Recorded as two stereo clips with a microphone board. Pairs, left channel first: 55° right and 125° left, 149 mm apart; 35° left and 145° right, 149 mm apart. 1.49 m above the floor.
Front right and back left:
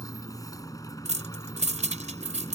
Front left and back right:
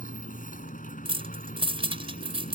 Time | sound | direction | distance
0.0 | a motorcycle | 10° left | ?
1.1 | keys jangling | 160° left | ?